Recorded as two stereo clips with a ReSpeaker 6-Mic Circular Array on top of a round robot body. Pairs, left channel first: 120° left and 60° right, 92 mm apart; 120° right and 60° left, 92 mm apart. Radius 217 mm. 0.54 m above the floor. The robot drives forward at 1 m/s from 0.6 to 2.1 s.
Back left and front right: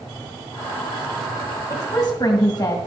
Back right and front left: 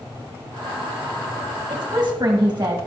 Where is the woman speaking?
80° left, 1.7 m; by 2.8 s 100° left, 1.7 m.